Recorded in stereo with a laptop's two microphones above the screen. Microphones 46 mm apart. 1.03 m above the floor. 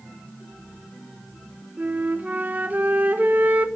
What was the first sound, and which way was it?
A flute, 40° right (ahead or behind).